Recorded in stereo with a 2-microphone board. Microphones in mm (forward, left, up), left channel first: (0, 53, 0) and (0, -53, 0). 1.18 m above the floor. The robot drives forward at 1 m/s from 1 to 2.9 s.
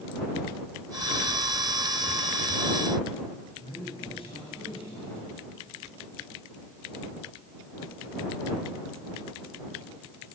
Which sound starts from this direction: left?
A man speaking, at 3.6 s.